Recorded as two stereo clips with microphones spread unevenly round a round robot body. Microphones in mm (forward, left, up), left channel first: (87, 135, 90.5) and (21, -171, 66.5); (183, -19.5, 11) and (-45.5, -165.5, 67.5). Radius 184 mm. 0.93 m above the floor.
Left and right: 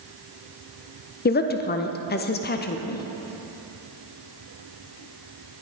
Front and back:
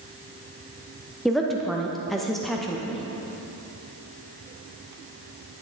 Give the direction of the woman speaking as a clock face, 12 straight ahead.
9 o'clock.